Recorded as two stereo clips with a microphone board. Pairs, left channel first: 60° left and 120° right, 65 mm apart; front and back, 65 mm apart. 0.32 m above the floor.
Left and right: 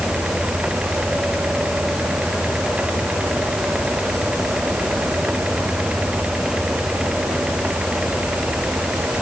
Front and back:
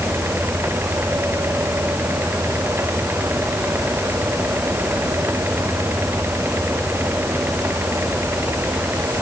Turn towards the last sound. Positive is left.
No sound to turn to.